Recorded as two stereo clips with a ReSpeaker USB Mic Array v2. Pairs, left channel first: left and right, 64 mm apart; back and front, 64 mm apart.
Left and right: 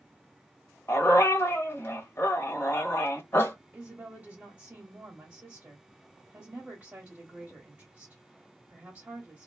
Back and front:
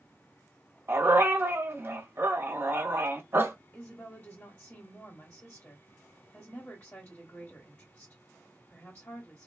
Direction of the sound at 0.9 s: 50° left.